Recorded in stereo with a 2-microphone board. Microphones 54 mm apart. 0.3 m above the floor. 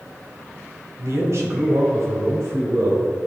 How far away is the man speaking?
About 1.9 m.